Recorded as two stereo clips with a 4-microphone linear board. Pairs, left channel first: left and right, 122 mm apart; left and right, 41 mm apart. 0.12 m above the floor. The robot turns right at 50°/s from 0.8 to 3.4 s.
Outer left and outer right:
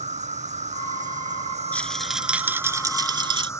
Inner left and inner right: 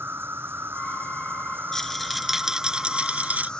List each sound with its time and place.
0.0 s an insect: 105° right; by 3.6 s 25° left
1.7 s a rattle: 165° left; by 3.5 s 110° right